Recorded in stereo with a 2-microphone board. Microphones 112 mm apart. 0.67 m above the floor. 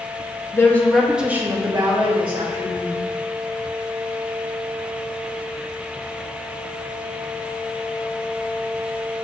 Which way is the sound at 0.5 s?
25° left (ahead or behind).